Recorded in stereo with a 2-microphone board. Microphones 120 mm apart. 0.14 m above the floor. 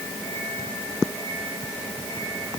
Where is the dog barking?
No dog barking in this recording.